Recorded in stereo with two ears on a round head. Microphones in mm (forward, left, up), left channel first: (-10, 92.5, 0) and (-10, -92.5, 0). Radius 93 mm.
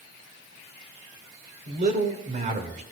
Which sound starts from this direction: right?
A man speaking, at 1.7 s.